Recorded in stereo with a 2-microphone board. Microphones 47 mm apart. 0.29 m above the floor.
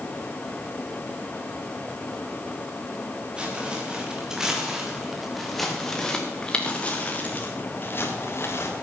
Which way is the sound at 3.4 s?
20° right (ahead or behind).